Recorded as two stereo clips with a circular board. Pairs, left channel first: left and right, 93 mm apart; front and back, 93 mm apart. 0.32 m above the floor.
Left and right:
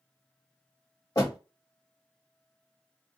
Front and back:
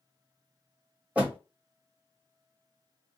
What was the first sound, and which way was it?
A door slam, 115° left.